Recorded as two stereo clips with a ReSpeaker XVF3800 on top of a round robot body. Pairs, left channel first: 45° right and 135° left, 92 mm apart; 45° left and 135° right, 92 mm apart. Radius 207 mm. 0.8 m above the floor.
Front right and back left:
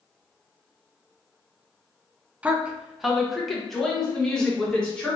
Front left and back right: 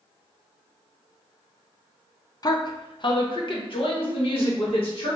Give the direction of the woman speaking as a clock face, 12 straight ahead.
10 o'clock.